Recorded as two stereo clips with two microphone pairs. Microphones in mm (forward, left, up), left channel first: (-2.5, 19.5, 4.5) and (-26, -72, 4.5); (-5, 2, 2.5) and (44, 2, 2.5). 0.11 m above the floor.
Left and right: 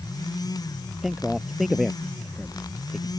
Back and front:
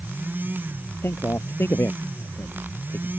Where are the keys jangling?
I don't hear keys jangling.